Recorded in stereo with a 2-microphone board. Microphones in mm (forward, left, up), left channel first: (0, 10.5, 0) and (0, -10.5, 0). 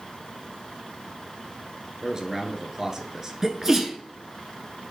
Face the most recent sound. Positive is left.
turn(degrees=-15)  # may be behind; listen again after turning